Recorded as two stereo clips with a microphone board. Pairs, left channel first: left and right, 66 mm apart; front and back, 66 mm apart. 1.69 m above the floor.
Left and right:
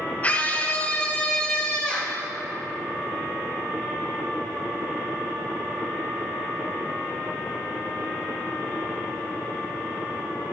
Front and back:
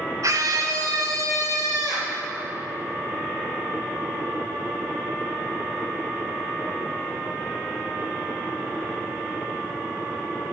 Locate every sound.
0.2 s a scream: 155° left, 1.2 m; by 2.2 s 165° left, 3 m